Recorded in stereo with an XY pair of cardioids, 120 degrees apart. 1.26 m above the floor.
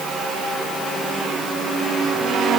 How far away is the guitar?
No guitar in this recording.